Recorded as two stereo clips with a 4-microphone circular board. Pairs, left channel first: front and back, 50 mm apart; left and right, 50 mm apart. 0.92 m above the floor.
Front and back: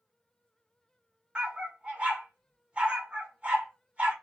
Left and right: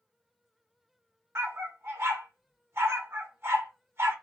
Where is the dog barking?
115° right, 1.1 m.